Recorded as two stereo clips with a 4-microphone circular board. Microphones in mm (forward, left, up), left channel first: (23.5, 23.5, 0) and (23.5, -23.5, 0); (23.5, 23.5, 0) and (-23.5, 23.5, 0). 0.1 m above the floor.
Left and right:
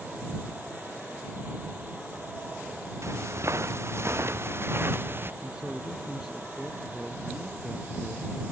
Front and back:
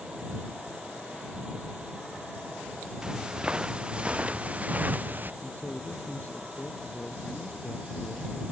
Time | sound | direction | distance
3.0 | footsteps | 105° right | ?
5.4 | a man speaking | 15° right | ?